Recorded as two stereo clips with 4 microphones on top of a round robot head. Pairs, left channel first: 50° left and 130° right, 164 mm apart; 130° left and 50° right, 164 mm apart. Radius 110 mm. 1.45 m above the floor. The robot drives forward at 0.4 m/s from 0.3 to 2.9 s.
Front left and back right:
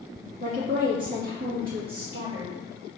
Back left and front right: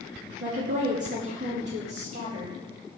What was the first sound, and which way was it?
A woman speaking, 85° right.